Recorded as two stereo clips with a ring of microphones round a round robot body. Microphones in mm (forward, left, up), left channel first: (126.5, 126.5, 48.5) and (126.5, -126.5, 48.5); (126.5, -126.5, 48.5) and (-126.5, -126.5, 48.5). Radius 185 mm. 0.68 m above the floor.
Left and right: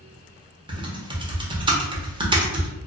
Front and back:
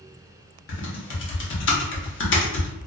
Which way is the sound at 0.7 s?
20° right.